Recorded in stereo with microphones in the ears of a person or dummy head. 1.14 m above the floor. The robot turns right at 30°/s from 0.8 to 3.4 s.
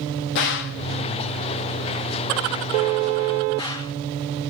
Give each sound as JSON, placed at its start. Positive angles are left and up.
{"t": 0.3, "sound": "a gunshot", "side_deg": 65, "distance_m": 0.9}